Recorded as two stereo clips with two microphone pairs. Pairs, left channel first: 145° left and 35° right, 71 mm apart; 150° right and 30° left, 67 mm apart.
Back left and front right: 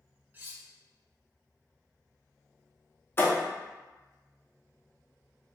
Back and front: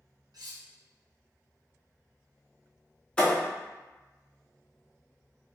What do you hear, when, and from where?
0.3 s cutlery clinking: 25° left, 0.6 m
3.2 s a thud: 145° left, 0.7 m